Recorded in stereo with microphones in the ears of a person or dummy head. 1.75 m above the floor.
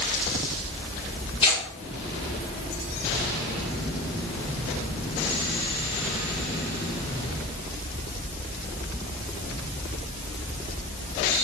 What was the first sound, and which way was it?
Tearing paper, 30° left (ahead or behind).